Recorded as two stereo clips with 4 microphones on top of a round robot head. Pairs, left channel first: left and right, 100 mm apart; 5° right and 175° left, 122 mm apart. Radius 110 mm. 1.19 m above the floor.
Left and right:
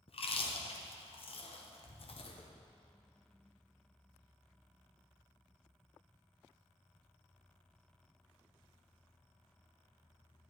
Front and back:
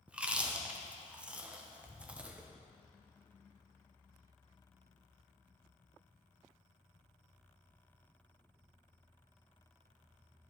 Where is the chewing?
95° left, 1.0 m.